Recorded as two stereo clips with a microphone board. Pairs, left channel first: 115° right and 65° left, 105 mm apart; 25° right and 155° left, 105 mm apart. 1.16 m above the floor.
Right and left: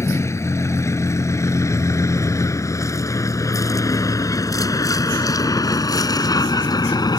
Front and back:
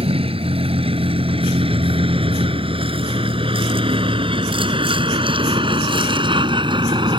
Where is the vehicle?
175° right; by 7.2 s 160° right.